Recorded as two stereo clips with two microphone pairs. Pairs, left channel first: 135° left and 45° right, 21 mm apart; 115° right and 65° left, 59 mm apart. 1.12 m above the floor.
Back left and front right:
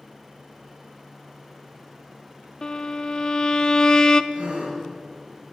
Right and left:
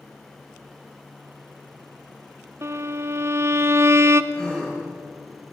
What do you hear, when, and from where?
2.6 s a violin: 80° left, 0.8 m
4.3 s a gasp: 35° right, 6 m